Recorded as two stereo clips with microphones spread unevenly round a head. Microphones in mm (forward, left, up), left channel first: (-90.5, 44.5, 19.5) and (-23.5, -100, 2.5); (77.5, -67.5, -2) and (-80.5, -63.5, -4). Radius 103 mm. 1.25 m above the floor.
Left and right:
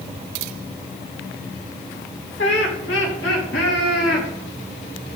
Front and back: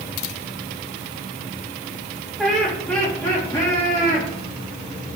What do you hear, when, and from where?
2.4 s laughter: 90° left, 2.5 m; by 4.3 s 65° left, 3 m